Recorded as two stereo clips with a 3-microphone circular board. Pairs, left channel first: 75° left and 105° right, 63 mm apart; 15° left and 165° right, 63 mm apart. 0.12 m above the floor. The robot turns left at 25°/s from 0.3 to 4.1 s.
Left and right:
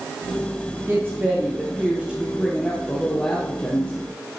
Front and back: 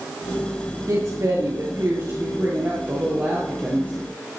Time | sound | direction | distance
0.9 | a woman speaking | 150° right | 3 m